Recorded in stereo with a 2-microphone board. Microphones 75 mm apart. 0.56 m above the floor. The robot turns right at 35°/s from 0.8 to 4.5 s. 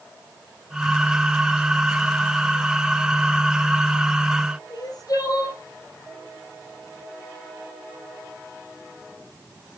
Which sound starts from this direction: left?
Crying, at 4.7 s.